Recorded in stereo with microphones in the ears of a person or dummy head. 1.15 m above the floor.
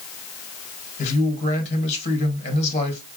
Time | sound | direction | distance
1.0 | a man speaking | 45° left (ahead or behind) | 1.6 m